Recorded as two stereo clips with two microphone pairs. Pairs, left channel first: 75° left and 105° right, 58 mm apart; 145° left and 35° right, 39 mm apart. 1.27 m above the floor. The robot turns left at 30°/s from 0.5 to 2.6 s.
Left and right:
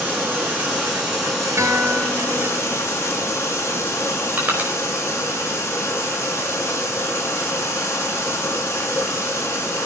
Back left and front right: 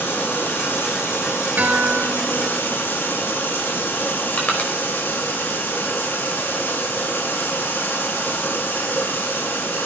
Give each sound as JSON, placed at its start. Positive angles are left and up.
{"t": 0.0, "sound": "running water", "azimuth_deg": -170, "distance_m": 7.5}
{"t": 1.6, "sound": "a guitar", "azimuth_deg": -75, "distance_m": 3.5}
{"t": 4.4, "sound": "crushing", "azimuth_deg": -165, "distance_m": 5.0}